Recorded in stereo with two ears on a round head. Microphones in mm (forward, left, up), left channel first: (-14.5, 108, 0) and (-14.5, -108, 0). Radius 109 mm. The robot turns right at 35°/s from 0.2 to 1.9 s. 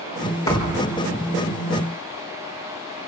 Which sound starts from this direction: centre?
A thud, at 0.5 s.